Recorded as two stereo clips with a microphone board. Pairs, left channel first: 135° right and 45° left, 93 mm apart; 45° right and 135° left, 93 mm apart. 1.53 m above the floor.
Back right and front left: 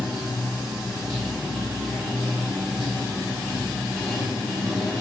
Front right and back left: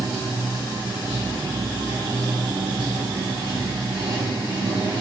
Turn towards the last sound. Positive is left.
turn(degrees=135)